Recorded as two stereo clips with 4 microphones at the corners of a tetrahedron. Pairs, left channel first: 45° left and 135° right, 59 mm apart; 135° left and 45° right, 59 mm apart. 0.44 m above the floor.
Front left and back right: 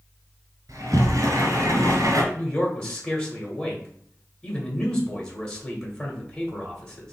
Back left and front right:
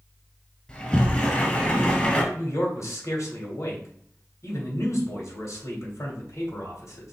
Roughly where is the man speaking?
Behind left.